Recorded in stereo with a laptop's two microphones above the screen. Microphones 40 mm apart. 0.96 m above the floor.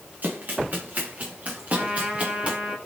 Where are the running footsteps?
45° right (ahead or behind), 9 m; by 2.6 s 35° right (ahead or behind), 9.5 m.